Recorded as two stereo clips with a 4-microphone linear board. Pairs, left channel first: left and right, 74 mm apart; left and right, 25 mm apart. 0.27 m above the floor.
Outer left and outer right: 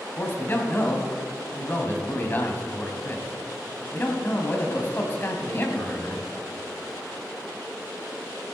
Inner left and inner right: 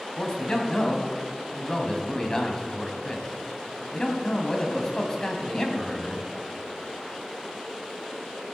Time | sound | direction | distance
0.2 | a man speaking | 30° left (ahead or behind) | 2.0 m